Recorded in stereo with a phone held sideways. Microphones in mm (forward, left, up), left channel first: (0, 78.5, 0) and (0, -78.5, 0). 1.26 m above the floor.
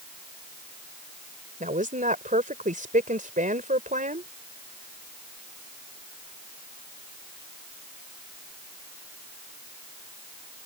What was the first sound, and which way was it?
A woman speaking, 60° right (ahead or behind).